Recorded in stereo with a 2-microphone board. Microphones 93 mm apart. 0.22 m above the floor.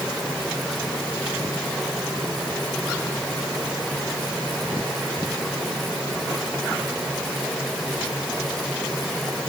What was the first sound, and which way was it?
Only background noise.